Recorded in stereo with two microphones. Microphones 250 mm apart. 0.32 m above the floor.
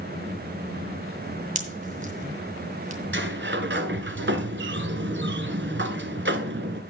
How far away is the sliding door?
About 1.1 m.